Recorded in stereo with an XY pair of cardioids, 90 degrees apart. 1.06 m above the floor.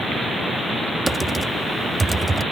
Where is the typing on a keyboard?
15° right.